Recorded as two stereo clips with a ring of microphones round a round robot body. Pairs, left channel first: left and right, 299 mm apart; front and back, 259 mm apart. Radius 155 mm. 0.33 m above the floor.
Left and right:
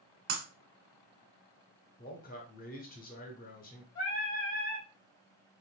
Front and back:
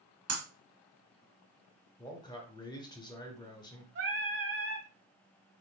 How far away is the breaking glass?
About 1.2 m.